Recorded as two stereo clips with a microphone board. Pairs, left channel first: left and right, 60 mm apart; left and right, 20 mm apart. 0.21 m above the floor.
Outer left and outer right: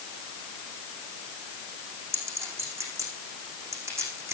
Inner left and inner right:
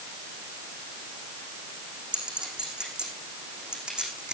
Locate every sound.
2.1 s a clink: 50° right (ahead or behind), 7 m